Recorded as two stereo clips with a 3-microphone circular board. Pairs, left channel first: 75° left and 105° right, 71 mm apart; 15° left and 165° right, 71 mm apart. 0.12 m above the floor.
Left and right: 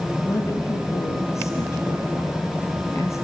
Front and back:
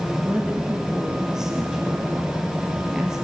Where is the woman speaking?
115° left, 2.5 m.